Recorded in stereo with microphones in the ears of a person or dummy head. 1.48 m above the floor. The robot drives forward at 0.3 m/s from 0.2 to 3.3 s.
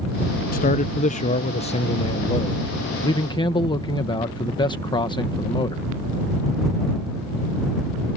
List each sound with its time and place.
0.5 s a man speaking: 40° left (ahead or behind); by 5.8 s 20° left (ahead or behind)